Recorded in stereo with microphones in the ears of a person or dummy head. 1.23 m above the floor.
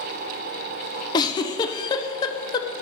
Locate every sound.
1.1 s a giggle: 25° left (ahead or behind), 0.7 m